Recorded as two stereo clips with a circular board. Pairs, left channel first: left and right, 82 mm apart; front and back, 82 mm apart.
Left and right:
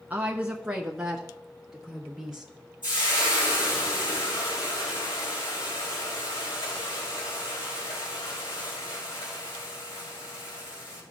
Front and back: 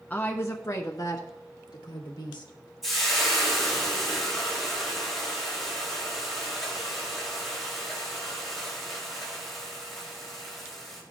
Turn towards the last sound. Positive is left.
turn(degrees=90)